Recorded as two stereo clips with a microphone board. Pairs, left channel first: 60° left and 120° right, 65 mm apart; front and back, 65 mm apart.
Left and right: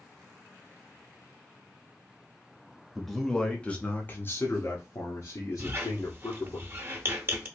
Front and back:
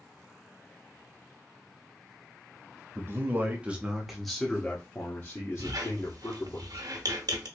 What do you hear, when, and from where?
3.0 s a man speaking: 150° left, 1.0 m; by 6.6 s 30° left, 1.6 m
5.6 s a squeak: 175° right, 0.9 m